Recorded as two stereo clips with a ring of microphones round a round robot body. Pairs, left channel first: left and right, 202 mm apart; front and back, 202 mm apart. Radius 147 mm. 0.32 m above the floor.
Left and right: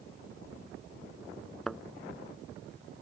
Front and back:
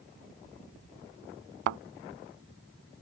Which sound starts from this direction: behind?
A thud, at 1.7 s.